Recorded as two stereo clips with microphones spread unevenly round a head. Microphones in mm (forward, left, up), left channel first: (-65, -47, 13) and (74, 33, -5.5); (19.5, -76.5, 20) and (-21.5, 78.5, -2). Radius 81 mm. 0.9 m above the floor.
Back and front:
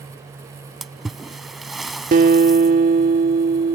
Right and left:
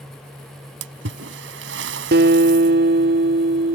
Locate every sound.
0.8 s a splash: 120° left
2.1 s a guitar: 75° left